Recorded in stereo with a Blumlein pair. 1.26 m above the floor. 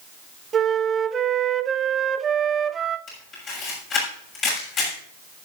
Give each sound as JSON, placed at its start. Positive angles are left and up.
{"t": 0.5, "sound": "a flute", "azimuth_deg": -20, "distance_m": 0.6}
{"t": 3.1, "sound": "a camera shutter", "azimuth_deg": 30, "distance_m": 6.5}